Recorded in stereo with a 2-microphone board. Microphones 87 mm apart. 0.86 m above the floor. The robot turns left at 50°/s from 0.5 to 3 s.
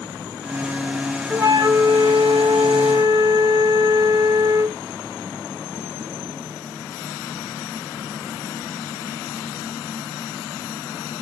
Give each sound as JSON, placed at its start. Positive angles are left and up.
{"t": 1.3, "sound": "a flute", "azimuth_deg": -30, "distance_m": 0.9}